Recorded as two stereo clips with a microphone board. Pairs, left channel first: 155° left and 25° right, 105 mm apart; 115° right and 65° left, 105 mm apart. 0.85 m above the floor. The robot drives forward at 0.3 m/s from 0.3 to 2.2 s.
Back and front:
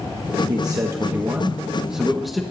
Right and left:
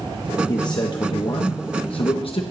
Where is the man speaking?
70° right, 0.8 m; by 2.4 s 110° right, 0.8 m.